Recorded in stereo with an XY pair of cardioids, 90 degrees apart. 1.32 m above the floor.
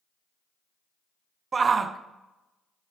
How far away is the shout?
About 0.5 m.